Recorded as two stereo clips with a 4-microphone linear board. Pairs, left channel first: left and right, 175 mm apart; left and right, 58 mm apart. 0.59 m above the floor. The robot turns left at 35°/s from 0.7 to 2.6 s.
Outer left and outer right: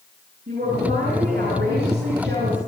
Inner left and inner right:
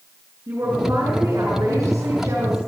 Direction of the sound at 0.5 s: 55° right.